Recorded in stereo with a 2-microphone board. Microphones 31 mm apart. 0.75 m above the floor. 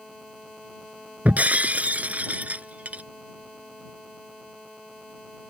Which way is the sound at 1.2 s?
55° right (ahead or behind).